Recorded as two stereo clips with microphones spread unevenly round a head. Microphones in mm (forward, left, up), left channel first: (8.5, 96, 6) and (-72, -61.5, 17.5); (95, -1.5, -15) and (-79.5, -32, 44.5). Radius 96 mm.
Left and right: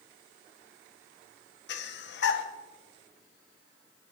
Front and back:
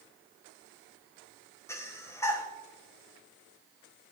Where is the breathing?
85° left, 1.5 m.